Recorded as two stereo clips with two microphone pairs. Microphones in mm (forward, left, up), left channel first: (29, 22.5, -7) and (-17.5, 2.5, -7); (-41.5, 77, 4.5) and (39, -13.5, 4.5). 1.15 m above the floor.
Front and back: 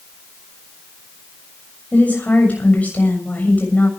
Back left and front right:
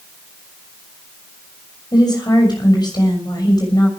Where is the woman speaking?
80° left, 6.5 m.